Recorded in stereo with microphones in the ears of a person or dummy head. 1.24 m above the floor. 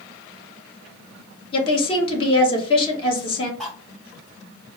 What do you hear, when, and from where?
1.5 s a woman speaking: 30° left (ahead or behind), 1.5 m
3.6 s cutlery clinking: 5° left (ahead or behind), 0.5 m